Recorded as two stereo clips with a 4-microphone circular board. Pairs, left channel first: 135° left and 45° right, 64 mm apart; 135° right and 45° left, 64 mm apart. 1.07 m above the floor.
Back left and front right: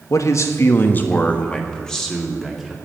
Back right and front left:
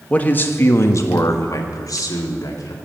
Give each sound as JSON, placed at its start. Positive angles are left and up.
{"t": 0.1, "sound": "a man speaking", "azimuth_deg": 160, "distance_m": 1.1}